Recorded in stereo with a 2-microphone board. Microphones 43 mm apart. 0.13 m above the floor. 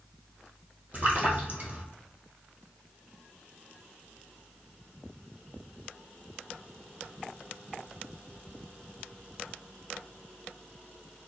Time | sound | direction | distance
0.9 | a splash | 35° right (ahead or behind) | 1.3 m